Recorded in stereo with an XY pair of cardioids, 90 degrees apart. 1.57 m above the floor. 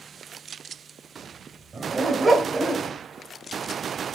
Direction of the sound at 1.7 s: 35° right.